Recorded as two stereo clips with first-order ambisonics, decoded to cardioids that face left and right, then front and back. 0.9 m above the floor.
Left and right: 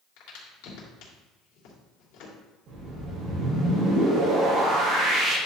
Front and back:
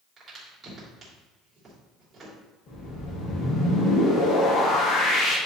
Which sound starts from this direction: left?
A crack, at 0.2 s.